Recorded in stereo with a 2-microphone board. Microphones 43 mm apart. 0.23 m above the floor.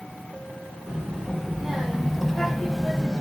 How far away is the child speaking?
About 1.8 m.